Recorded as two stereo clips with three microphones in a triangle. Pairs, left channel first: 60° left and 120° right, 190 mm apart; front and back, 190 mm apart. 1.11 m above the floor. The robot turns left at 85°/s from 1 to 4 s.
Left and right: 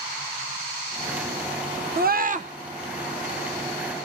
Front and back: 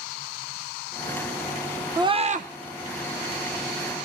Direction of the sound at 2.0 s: 115° right.